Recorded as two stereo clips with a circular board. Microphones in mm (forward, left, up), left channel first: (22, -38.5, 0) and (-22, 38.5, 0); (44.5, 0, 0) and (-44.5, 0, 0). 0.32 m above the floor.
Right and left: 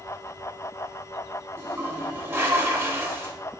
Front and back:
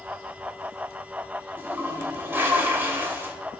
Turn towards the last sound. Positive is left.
turn(degrees=140)